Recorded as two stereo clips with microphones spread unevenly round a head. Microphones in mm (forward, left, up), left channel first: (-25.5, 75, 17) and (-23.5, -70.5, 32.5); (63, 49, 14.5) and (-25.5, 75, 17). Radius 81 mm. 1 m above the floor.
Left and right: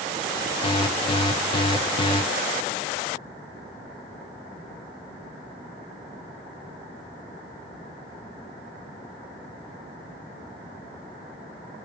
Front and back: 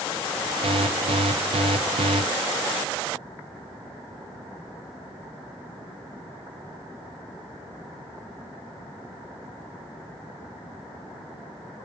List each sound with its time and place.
0.6 s an alarm: 145° left, 0.5 m